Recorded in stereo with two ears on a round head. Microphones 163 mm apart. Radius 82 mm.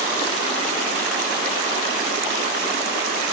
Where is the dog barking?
I don't hear a dog barking.